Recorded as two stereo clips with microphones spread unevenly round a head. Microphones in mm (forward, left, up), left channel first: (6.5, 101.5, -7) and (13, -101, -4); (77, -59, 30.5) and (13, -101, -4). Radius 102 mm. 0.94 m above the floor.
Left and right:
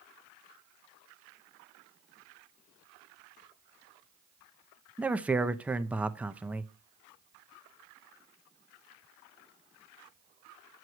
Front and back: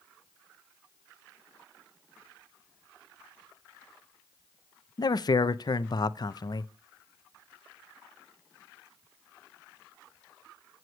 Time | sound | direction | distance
5.0 | a man speaking | 5° right | 0.7 m